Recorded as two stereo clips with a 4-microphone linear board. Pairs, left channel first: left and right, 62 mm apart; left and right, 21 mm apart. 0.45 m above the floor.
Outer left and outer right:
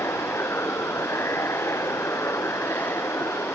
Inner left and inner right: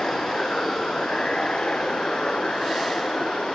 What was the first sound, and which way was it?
Running water, 45° left (ahead or behind).